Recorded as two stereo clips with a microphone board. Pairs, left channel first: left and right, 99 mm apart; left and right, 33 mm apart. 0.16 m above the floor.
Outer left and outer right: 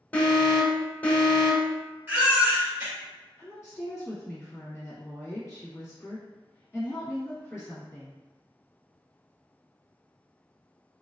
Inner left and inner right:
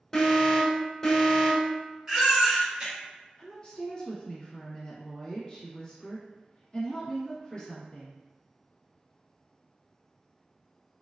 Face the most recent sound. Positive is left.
turn(degrees=30)  # may be behind; listen again after turning